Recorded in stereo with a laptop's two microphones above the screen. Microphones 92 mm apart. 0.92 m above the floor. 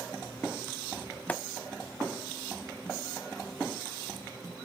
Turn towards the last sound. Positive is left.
turn(degrees=15)  # may be behind; listen again after turning